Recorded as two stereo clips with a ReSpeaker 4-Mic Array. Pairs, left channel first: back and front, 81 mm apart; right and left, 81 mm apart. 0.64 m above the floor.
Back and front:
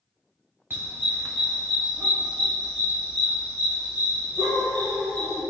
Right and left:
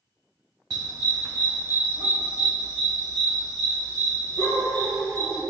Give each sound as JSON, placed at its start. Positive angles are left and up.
{"t": 0.7, "sound": "a dog barking", "azimuth_deg": 60, "distance_m": 1.5}